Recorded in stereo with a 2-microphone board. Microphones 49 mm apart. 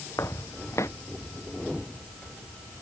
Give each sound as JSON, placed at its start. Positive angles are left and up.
{"t": 0.2, "sound": "footsteps", "side_deg": 85}